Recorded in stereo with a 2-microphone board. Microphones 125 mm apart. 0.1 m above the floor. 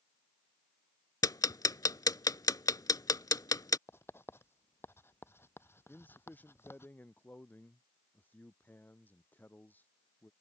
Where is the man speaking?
15° left (ahead or behind).